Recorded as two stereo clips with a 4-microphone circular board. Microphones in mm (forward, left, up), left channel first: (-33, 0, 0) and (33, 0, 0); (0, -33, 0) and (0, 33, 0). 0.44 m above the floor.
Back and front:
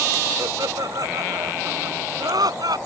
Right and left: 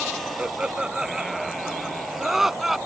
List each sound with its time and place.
0.4 s laughter: 15° left; by 2.8 s 5° left